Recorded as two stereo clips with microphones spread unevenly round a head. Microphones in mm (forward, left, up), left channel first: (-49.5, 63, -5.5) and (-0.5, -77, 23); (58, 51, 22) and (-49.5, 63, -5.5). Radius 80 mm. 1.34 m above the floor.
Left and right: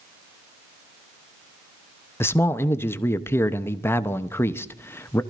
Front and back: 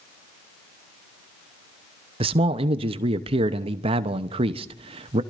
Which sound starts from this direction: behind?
A man speaking, at 2.2 s.